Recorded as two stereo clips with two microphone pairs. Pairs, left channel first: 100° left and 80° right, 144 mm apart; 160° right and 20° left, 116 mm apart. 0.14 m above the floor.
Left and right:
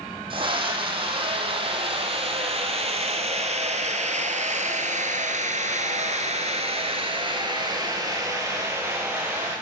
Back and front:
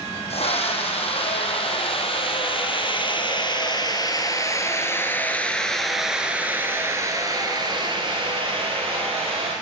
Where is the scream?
135° right, 5.5 m; by 9.5 s straight ahead, 3.5 m.